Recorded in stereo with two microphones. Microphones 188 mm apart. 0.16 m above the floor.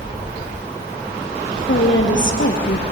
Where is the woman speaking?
70° left (ahead or behind), 3 m.